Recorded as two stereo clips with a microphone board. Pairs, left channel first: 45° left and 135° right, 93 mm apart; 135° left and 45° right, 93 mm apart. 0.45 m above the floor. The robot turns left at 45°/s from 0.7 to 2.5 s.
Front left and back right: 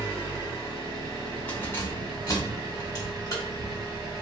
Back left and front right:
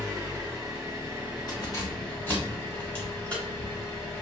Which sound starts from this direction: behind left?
Keys jangling, at 1.5 s.